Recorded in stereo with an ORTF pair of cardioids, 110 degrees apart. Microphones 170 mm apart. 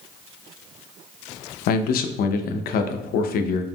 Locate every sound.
1.7 s a man speaking: 65° left, 0.6 m